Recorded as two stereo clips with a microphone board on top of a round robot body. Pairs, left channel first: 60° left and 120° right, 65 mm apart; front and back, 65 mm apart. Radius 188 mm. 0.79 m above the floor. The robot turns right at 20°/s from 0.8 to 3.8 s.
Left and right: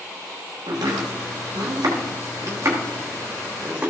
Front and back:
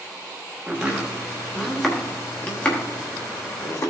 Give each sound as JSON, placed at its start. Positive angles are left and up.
{"t": 0.7, "sound": "chopping", "azimuth_deg": -105, "distance_m": 1.0}